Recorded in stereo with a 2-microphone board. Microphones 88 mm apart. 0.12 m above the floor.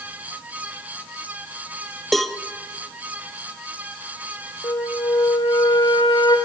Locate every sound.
2.1 s a cowbell: centre (ahead or behind), 1.1 m
4.6 s a flute: 60° left (ahead or behind), 3 m